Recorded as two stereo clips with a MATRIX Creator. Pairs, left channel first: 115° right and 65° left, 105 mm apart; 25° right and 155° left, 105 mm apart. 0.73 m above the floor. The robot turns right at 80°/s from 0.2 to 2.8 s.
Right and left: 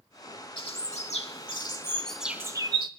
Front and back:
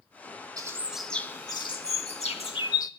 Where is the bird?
150° right, 1.2 m; by 2.9 s 30° left, 1.2 m.